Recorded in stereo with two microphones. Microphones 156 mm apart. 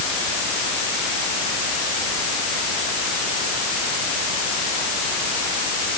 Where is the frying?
I don't hear frying.